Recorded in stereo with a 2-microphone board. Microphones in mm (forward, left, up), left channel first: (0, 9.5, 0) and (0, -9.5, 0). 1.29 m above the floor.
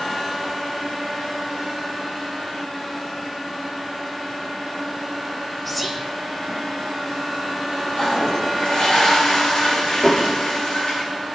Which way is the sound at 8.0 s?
45° left (ahead or behind).